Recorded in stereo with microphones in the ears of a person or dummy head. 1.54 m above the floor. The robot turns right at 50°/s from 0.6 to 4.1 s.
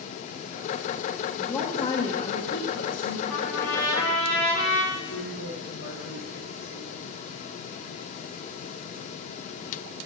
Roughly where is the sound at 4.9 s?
Left.